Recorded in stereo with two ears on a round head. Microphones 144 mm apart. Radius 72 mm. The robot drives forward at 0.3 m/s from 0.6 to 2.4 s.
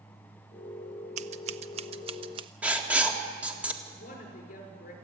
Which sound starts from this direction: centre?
Writing, at 2.6 s.